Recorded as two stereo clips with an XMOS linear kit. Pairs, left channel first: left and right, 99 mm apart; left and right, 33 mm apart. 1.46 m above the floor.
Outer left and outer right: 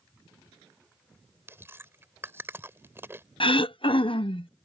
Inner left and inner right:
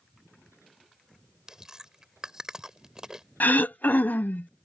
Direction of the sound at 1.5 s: 25° right (ahead or behind).